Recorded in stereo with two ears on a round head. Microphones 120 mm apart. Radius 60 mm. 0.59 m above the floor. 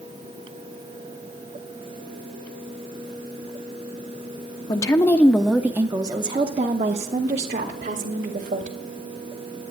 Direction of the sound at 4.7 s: 30° left (ahead or behind).